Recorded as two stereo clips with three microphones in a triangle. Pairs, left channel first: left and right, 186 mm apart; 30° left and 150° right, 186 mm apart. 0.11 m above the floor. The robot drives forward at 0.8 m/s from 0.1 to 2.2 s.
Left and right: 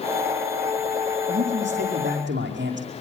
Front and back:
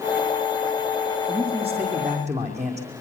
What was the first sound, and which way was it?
A man speaking, 90° right.